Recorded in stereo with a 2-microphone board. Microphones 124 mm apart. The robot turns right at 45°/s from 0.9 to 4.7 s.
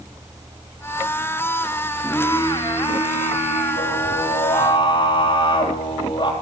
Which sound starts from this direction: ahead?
Singing, at 2.0 s.